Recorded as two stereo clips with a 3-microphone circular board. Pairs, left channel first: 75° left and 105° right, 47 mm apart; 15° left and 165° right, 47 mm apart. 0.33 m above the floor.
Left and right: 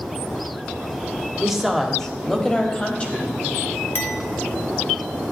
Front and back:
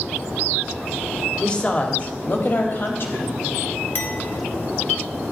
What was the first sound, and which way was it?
A woman speaking, 35° right.